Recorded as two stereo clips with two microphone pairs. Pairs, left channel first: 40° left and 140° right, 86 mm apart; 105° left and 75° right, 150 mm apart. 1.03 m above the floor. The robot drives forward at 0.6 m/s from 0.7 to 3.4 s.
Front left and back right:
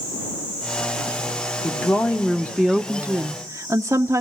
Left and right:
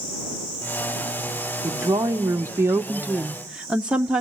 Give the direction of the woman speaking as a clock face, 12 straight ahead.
12 o'clock.